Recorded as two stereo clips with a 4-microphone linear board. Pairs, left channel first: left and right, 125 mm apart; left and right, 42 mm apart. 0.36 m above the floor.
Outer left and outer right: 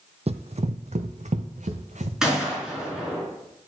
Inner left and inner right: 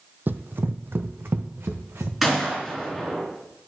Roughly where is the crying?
No crying in this recording.